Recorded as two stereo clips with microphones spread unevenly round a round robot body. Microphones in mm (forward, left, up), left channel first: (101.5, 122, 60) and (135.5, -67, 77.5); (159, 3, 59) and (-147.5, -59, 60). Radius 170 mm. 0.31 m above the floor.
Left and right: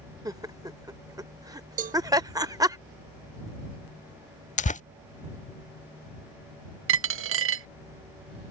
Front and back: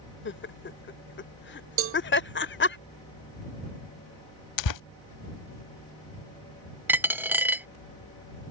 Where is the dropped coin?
85° right.